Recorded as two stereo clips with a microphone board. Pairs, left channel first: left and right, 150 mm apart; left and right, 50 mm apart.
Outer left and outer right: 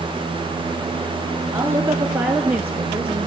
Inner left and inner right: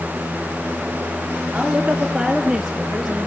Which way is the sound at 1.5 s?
20° right (ahead or behind).